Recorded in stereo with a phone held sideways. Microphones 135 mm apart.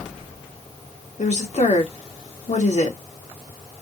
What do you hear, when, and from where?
1.2 s a woman speaking: 60° left (ahead or behind), 2 m